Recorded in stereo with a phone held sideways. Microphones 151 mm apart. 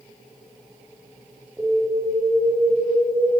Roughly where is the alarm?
Centre.